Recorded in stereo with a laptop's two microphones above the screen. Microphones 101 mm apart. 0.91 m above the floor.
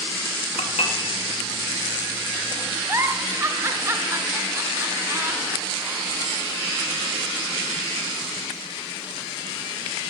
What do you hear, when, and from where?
0.6 s dishes clattering: 80° left, 0.8 m
2.9 s a giggle: 25° right (ahead or behind), 0.6 m